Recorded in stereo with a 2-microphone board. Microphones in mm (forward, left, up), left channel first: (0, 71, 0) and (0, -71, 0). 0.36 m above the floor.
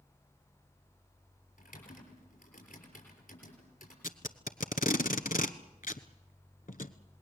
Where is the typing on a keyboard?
80° left, 6 m.